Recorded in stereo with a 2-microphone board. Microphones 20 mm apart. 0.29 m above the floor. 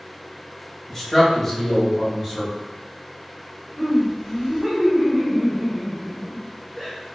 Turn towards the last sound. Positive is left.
turn(degrees=-20)  # may be behind; listen again after turning